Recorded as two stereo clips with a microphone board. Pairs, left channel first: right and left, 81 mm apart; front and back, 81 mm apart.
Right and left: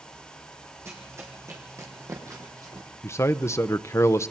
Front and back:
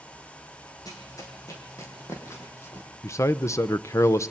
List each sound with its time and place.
0.8 s running footsteps: 40° left, 4 m; by 2.9 s 55° left, 3.5 m
3.0 s a man speaking: 40° right, 0.7 m